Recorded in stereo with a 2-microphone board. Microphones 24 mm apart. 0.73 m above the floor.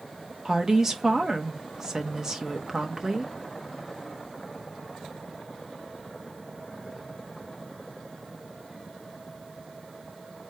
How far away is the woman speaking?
About 1.2 m.